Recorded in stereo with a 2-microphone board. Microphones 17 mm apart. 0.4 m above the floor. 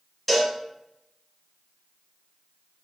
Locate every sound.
0.3 s a cowbell: 5° left (ahead or behind), 0.9 m